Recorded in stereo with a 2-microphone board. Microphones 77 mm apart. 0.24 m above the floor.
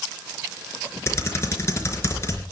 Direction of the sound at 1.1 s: 35° left (ahead or behind).